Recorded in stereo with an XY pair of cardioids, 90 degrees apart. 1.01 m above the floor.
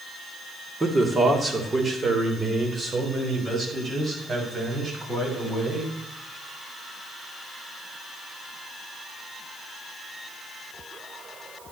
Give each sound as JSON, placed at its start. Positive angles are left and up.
{"t": 0.8, "sound": "a man speaking", "azimuth_deg": -30, "distance_m": 2.5}